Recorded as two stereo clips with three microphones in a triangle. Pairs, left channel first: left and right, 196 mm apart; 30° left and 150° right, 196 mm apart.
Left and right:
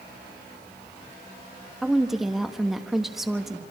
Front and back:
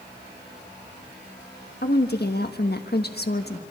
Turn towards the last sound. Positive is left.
turn(degrees=0)